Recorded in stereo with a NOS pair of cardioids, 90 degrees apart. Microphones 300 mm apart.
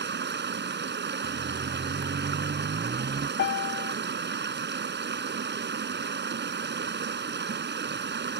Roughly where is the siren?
Ahead right.